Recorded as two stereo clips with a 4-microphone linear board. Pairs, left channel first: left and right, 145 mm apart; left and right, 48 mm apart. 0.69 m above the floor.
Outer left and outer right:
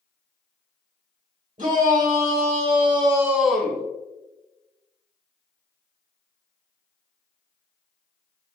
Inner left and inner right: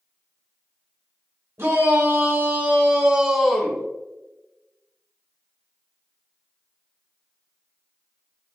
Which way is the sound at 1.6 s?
60° right (ahead or behind).